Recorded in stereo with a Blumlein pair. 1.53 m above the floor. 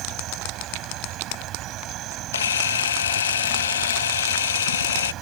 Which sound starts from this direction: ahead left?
A camera shutter, at 2.3 s.